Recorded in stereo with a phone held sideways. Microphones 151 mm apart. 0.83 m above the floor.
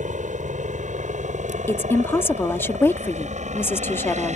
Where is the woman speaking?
15° left (ahead or behind).